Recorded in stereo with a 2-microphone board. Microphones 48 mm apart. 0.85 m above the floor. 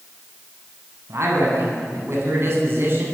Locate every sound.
1.1 s a man speaking: 65° right (ahead or behind), 8 m; by 3.1 s 50° right (ahead or behind), 8.5 m